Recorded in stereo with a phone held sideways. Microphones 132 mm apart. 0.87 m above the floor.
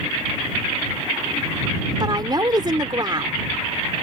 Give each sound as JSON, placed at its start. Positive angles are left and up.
{"t": 2.0, "sound": "a woman speaking", "side_deg": -35}